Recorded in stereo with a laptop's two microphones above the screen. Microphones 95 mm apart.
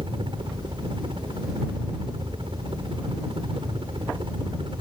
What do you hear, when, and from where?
0.0 s a helicopter: 65° right (ahead or behind)